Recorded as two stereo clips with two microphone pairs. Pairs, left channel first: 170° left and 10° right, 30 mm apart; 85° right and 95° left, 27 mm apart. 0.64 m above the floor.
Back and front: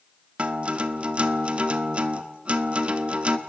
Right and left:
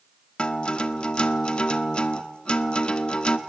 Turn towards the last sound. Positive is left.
turn(degrees=-45)